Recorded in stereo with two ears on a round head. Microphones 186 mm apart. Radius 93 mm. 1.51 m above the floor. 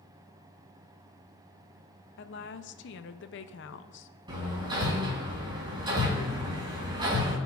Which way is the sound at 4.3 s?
25° right (ahead or behind).